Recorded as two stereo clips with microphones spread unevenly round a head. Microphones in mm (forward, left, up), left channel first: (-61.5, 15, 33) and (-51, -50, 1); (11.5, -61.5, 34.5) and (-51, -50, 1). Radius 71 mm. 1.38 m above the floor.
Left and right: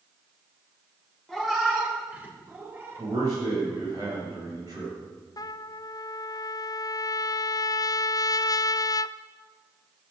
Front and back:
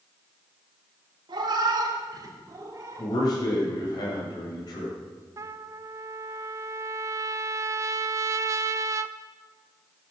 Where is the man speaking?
15° right, 7.5 m.